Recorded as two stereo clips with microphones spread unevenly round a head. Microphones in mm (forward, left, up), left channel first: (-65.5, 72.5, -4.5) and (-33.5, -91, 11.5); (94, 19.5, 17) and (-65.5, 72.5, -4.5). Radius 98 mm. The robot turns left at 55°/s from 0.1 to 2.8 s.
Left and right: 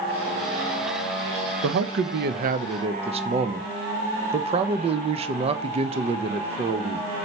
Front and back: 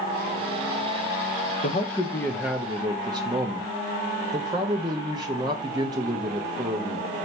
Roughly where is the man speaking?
Right.